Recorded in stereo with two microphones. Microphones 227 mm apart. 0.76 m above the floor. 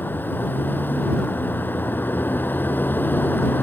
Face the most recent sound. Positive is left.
turn(degrees=10)  # may be behind; listen again after turning